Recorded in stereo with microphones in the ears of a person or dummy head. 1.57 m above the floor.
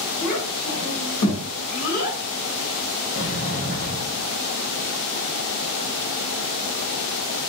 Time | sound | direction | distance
0.2 | a child speaking | 75° left (ahead or behind) | 1.2 m
3.1 | a sliding door | 55° left (ahead or behind) | 1.1 m